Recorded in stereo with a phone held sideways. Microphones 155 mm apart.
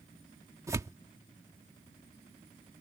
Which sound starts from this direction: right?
Tearing paper, at 0.7 s.